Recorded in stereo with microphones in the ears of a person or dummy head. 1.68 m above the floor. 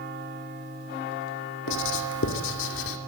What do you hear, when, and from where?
1.7 s writing: 65° left (ahead or behind), 2.5 m